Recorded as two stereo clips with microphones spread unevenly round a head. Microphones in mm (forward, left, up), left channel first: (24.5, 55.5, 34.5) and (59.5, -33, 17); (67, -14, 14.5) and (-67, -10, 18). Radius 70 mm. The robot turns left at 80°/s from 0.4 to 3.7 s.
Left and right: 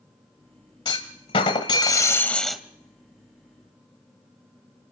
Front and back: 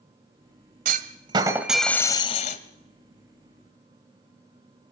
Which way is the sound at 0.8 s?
165° left.